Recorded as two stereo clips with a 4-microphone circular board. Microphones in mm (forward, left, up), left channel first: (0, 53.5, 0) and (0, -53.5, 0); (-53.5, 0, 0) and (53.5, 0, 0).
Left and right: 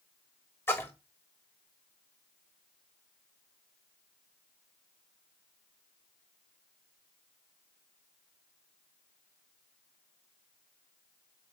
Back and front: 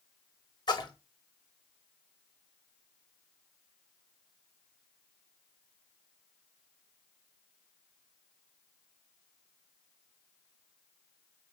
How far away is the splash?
About 0.6 m.